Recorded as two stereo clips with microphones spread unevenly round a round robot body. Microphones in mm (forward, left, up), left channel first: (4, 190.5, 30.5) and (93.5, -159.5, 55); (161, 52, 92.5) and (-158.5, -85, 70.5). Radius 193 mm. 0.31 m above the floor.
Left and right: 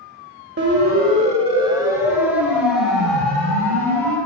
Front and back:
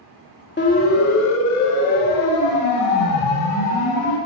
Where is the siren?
30° right, 2.5 m; by 4.2 s 20° left, 6 m.